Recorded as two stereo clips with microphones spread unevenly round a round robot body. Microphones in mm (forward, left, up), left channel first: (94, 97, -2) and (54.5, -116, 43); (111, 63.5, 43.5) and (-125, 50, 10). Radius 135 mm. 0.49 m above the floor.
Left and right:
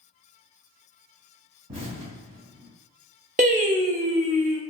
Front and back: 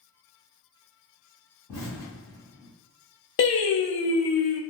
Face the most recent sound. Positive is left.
turn(degrees=-40)